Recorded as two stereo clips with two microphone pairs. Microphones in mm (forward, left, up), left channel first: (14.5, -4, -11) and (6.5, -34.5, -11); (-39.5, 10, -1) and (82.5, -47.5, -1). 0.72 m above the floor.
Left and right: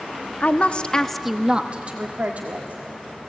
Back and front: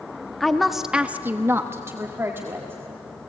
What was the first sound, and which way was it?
A woman speaking, 65° left.